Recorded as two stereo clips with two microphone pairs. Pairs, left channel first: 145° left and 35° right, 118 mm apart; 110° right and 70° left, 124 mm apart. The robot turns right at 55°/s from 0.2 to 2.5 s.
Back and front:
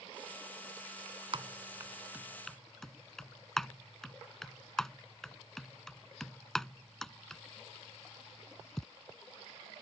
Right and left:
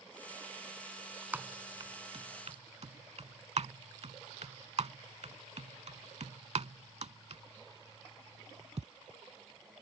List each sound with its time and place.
1.3 s typing on a keyboard: 5° right; by 8.8 s 60° left